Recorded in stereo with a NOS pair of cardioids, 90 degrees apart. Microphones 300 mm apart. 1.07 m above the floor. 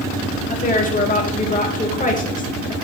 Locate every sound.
0.5 s a woman speaking: 25° left, 2.5 m